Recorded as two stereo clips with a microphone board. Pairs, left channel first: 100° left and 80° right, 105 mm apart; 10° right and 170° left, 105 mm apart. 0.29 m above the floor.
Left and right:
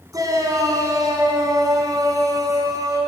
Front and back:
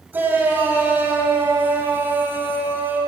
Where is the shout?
125° right, 2 m.